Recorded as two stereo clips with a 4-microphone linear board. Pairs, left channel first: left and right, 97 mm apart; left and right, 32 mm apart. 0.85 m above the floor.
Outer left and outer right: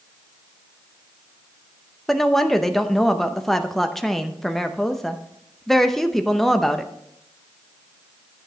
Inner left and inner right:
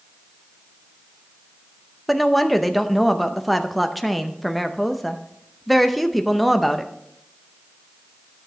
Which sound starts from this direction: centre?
A woman speaking, at 2.1 s.